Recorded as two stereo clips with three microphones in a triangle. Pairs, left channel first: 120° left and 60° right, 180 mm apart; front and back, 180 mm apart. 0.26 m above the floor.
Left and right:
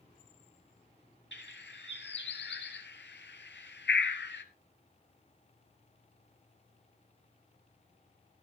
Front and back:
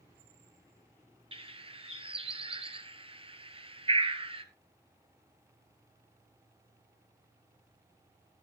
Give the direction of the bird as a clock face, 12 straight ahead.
8 o'clock.